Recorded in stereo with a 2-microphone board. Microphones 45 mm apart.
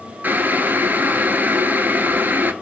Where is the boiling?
40° right (ahead or behind), 0.5 m.